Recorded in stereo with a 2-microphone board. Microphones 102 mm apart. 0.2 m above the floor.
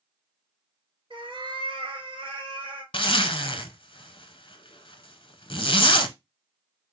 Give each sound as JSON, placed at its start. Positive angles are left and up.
{"t": 1.1, "sound": "a cat meowing", "side_deg": -60, "distance_m": 1.4}
{"t": 2.9, "sound": "a zipper", "side_deg": 60, "distance_m": 0.5}